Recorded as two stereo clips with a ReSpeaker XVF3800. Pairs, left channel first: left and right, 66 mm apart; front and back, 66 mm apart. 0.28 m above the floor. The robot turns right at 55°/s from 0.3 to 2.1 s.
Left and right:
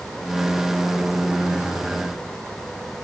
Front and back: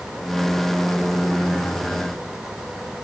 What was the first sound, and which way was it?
Only background noise.